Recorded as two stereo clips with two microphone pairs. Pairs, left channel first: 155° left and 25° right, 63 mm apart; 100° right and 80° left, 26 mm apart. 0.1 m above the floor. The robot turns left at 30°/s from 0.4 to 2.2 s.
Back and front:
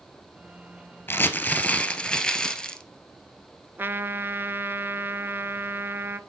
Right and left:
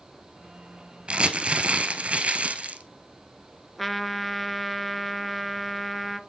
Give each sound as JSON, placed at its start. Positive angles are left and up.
{"t": 1.1, "sound": "crumpling", "azimuth_deg": 110, "distance_m": 1.0}
{"t": 3.8, "sound": "a trumpet", "azimuth_deg": -25, "distance_m": 0.5}